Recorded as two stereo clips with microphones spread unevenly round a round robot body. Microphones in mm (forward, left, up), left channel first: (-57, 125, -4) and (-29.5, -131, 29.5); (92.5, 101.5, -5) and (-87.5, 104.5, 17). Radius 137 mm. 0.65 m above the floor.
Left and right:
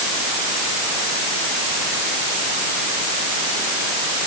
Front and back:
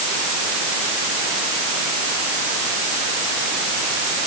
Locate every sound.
Only background noise.